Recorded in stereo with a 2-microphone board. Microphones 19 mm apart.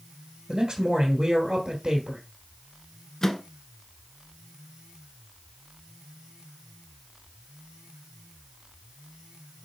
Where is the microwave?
25° left (ahead or behind), 0.9 m.